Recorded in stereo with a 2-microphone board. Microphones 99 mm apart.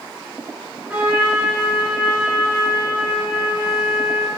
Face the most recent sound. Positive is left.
turn(degrees=-10)  # may be behind; listen again after turning